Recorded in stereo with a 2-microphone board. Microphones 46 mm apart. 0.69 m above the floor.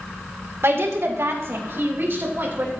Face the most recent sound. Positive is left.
turn(degrees=-45)  # may be behind; listen again after turning